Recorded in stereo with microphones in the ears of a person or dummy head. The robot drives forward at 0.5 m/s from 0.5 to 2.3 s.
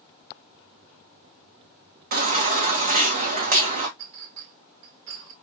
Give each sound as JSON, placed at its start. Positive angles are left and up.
{"t": 2.1, "sound": "a baby crying", "side_deg": -45, "distance_m": 0.8}
{"t": 4.0, "sound": "a clink", "side_deg": -70, "distance_m": 1.5}